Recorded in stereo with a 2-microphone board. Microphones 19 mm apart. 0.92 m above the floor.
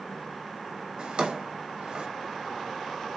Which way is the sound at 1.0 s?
75° right (ahead or behind).